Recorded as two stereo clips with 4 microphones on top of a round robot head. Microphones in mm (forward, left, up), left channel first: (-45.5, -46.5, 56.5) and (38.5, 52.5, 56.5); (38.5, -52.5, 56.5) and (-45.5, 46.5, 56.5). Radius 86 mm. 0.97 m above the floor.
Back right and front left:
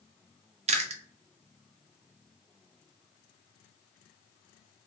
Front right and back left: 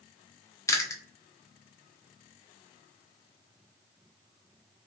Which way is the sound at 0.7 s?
15° left.